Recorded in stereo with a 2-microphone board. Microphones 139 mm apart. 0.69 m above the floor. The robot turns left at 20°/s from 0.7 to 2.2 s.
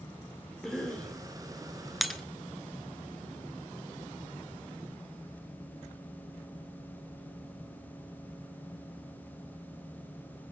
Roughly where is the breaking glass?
Centre.